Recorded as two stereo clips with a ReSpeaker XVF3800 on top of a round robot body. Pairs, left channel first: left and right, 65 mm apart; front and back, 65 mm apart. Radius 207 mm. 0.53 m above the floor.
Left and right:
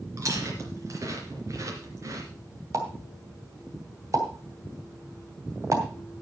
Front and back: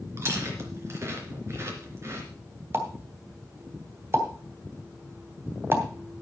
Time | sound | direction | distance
0.2 | chewing | 130° right | 3 m
2.7 | a pop | 130° right | 2.5 m